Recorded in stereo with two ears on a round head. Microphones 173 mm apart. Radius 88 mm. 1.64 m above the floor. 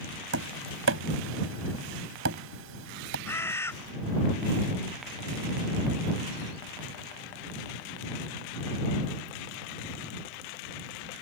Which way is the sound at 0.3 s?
75° right (ahead or behind).